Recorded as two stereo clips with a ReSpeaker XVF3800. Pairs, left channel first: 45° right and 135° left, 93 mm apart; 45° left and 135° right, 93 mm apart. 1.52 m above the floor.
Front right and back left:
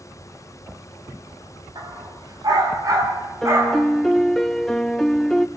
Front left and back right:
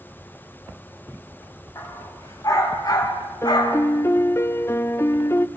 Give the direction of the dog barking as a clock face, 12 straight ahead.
9 o'clock.